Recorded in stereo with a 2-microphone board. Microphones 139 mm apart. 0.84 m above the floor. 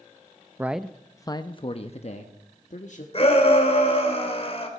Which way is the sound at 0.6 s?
15° right (ahead or behind).